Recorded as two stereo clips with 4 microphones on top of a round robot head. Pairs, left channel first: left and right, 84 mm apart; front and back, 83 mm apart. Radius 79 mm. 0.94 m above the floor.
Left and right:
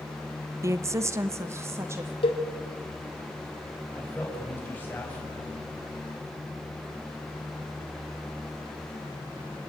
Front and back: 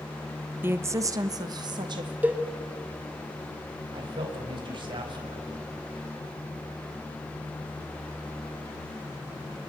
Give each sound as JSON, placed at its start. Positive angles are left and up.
{"t": 0.6, "sound": "a woman speaking", "azimuth_deg": -125, "distance_m": 0.7}
{"t": 2.2, "sound": "a cowbell", "azimuth_deg": 115, "distance_m": 2.5}
{"t": 3.9, "sound": "a man speaking", "azimuth_deg": 160, "distance_m": 6.0}